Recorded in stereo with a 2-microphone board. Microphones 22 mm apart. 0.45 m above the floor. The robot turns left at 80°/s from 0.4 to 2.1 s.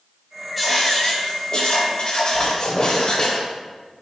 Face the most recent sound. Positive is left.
turn(degrees=50)  # may be behind; listen again after turning